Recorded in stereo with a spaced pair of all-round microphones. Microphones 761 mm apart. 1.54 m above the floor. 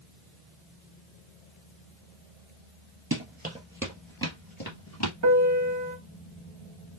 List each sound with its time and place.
3.1 s running footsteps: 20° right (ahead or behind), 1.6 m; by 5.1 s 25° left (ahead or behind), 1.7 m
5.2 s a piano: 25° right (ahead or behind), 0.6 m